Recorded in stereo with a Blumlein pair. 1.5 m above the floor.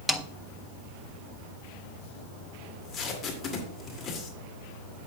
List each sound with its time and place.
0.1 s a snare drum: straight ahead, 0.8 m
2.6 s tape being pulled: 20° left, 2.5 m